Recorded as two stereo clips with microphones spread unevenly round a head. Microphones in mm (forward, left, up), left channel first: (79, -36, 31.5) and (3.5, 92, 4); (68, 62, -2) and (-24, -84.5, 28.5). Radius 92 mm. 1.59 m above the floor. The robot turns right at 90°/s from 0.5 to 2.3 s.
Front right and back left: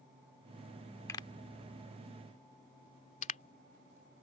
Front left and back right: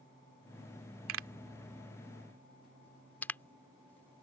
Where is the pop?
135° right; by 4.2 s 25° right.